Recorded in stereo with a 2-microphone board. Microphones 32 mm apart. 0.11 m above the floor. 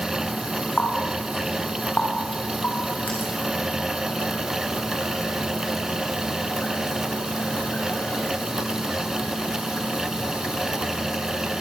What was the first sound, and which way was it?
A running tap, 55° left (ahead or behind).